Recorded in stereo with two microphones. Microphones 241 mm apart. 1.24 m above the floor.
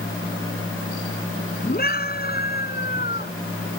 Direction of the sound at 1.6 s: 35° left (ahead or behind).